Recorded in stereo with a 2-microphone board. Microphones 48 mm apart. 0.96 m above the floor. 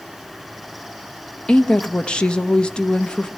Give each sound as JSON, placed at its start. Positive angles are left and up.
{"t": 1.5, "sound": "a woman speaking", "side_deg": 20, "distance_m": 1.0}